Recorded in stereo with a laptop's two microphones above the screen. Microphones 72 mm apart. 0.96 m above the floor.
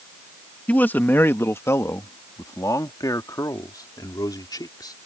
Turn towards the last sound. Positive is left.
turn(degrees=65)  # may be behind; listen again after turning